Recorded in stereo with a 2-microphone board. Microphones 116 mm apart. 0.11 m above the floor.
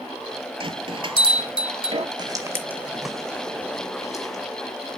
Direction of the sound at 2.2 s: 35° right (ahead or behind).